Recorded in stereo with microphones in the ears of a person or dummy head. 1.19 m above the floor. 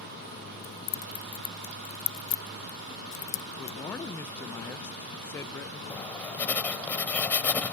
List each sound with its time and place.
0.6 s keys jangling: 60° left (ahead or behind)
3.6 s a man speaking: 15° left (ahead or behind)
5.9 s writing: 15° left (ahead or behind)